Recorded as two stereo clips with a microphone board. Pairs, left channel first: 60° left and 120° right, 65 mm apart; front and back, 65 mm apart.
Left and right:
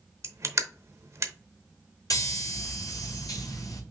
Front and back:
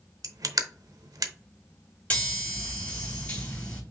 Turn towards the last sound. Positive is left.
turn(degrees=70)